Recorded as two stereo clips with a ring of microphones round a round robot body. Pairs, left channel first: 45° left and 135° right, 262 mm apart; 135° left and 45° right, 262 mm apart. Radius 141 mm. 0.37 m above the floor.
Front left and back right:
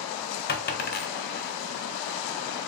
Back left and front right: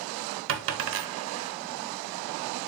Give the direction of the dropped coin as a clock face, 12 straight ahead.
12 o'clock.